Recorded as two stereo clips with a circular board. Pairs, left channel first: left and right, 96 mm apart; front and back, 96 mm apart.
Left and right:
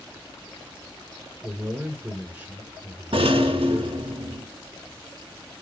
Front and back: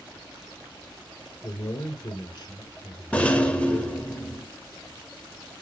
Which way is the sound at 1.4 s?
30° right.